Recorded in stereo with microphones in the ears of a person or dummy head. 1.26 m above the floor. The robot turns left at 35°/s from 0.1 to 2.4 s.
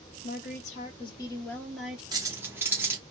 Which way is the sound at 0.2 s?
55° left.